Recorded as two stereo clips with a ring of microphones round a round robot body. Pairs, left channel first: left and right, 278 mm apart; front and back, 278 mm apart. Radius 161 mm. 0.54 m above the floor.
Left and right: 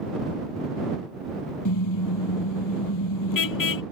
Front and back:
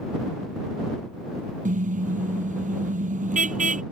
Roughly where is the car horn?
Behind left.